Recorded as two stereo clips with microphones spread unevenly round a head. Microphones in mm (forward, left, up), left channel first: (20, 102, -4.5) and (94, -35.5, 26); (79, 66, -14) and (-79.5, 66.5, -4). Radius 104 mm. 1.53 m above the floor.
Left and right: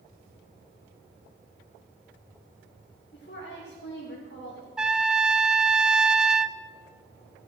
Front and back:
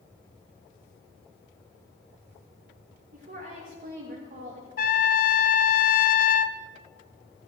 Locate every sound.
3.1 s a woman speaking: 155° left, 2.5 m
4.8 s a trumpet: 15° left, 0.7 m